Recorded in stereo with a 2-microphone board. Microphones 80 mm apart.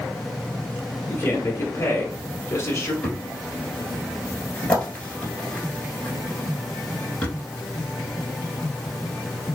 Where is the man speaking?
35° left (ahead or behind), 1.3 m.